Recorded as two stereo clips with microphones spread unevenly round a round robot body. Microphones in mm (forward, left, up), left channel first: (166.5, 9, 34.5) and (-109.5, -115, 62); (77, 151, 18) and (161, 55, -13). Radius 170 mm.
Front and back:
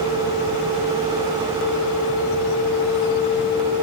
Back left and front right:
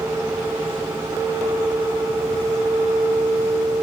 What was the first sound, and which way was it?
Only background noise.